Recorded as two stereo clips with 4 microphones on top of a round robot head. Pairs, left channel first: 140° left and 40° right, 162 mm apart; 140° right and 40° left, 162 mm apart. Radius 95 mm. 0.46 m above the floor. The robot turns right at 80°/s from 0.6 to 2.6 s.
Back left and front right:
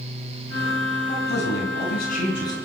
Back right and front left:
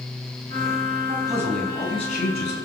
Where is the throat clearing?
I don't hear throat clearing.